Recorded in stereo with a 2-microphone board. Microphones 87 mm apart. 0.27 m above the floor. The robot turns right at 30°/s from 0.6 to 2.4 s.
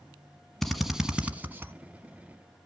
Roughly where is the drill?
Centre.